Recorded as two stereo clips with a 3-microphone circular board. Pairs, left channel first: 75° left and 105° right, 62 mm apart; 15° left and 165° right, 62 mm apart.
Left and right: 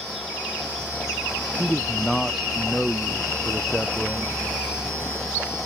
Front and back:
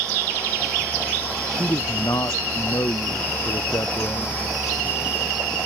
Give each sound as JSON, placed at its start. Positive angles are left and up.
{"t": 1.5, "sound": "a man speaking", "azimuth_deg": -15}